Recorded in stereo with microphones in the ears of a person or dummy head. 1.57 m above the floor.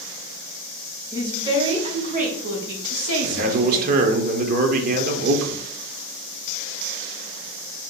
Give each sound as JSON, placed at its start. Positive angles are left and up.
{"t": 1.1, "sound": "a woman speaking", "side_deg": -20, "distance_m": 1.4}
{"t": 3.2, "sound": "a man speaking", "side_deg": -45, "distance_m": 0.9}